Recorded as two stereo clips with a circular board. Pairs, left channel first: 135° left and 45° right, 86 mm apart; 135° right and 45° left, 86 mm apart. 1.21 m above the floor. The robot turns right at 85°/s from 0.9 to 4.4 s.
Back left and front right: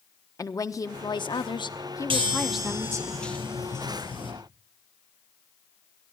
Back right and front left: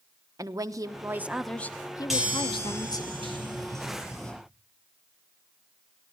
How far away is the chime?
About 4.5 m.